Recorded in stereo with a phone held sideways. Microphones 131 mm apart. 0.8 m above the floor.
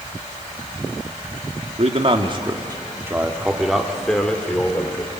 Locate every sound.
1.8 s a man speaking: 50° right (ahead or behind), 1.8 m; by 5.1 s 15° left (ahead or behind), 3 m